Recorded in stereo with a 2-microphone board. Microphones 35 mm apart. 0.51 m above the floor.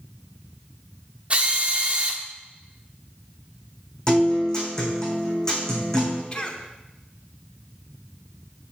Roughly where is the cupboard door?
No cupboard door in this recording.